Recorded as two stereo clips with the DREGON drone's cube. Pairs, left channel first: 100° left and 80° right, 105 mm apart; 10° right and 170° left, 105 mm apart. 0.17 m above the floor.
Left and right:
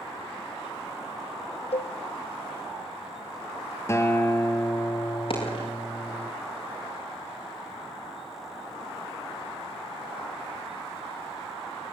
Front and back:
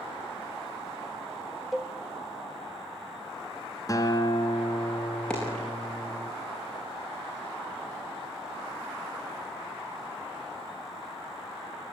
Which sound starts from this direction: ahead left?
A guitar, at 3.9 s.